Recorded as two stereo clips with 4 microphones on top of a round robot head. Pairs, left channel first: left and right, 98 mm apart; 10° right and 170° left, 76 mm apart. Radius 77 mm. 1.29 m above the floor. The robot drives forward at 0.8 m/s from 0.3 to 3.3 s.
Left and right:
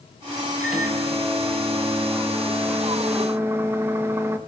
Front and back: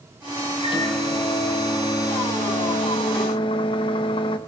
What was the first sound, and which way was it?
A microwave, 5° right.